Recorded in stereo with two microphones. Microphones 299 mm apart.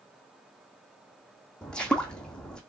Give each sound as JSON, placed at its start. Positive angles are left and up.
{"t": 1.6, "sound": "footsteps", "side_deg": 5, "distance_m": 0.7}